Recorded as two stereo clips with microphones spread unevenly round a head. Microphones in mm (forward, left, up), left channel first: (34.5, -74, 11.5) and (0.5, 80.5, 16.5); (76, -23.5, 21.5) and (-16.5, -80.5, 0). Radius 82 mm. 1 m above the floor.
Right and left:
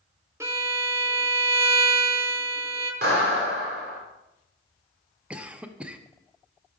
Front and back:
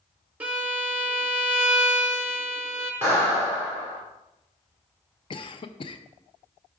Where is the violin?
165° left, 0.7 m.